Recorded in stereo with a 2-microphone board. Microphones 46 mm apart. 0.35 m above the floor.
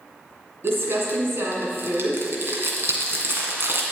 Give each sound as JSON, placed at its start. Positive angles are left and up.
{"t": 0.6, "sound": "crumpling", "side_deg": -55, "distance_m": 2.0}